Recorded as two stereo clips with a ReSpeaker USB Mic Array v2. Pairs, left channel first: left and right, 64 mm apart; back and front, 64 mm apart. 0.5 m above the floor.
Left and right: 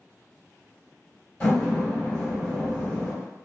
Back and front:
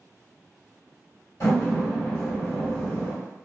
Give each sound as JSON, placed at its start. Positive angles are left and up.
{"t": 1.4, "sound": "a door slam", "azimuth_deg": 155, "distance_m": 1.8}